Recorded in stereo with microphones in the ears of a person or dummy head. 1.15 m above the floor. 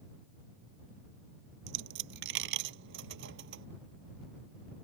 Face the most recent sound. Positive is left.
turn(degrees=-75)  # may be behind; listen again after turning